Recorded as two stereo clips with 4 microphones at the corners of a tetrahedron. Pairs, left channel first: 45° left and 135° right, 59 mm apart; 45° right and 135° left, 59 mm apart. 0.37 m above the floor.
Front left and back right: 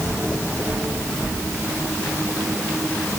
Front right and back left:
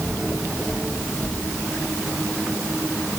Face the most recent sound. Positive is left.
No sound to turn to.